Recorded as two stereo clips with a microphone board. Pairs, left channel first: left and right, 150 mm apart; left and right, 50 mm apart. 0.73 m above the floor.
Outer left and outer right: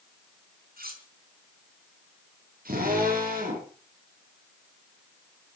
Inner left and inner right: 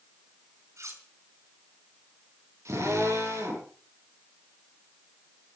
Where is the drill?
75° right (ahead or behind), 9.5 m.